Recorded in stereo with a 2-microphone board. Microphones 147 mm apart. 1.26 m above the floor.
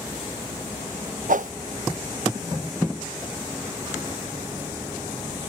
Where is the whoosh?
65° right (ahead or behind).